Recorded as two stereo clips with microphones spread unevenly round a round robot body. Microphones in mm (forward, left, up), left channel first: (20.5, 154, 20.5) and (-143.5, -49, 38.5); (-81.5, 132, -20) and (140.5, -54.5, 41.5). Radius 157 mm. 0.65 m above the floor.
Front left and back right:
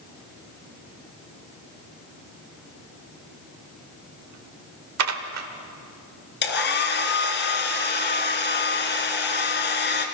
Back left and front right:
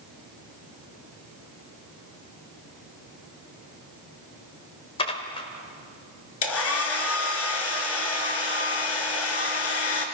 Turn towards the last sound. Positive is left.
turn(degrees=100)